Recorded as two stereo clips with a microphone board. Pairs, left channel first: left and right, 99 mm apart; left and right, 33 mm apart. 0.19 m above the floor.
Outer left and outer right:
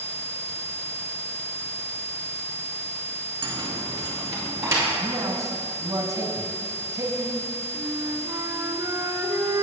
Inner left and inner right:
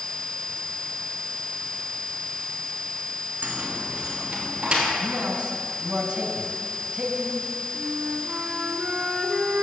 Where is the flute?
35° right (ahead or behind), 1.8 m.